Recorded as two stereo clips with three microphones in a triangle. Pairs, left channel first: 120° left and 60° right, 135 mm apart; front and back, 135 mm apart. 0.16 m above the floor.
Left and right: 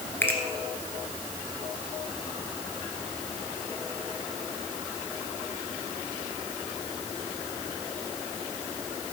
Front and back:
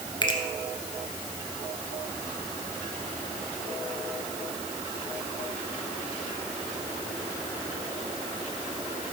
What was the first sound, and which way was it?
A finger snap, 45° left.